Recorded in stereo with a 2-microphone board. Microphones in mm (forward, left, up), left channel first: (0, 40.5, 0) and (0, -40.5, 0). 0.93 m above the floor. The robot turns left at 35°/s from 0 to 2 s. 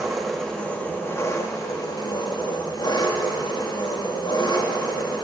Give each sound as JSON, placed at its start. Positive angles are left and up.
{"t": 0.0, "sound": "an engine running", "azimuth_deg": -175, "distance_m": 1.5}